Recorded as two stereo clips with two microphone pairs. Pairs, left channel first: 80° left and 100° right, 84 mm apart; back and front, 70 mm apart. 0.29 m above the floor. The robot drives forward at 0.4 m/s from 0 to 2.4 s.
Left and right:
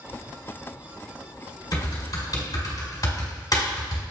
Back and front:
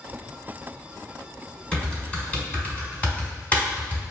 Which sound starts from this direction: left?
Typing on a keyboard, at 1.7 s.